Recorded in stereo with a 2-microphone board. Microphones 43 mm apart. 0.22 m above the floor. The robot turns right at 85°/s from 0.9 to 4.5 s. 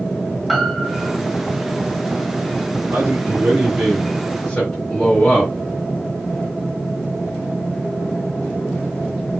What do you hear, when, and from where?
0.5 s a piano: centre (ahead or behind), 1.6 m; by 1.2 s 10° right (ahead or behind), 1.6 m
2.9 s a man speaking: 120° right, 3 m; by 5.5 s 15° left, 3 m